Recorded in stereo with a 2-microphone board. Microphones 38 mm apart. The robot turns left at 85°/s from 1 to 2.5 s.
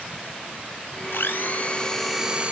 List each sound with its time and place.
1.1 s a blender: 85° left, 0.8 m; by 2.5 s 30° right, 0.8 m